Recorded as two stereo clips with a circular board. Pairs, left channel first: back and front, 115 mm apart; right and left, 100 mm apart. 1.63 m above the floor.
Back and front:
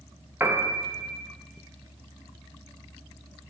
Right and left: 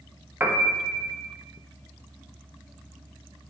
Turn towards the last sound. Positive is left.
turn(degrees=45)